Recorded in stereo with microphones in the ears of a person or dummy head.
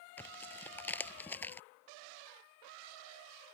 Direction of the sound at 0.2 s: 10° left (ahead or behind).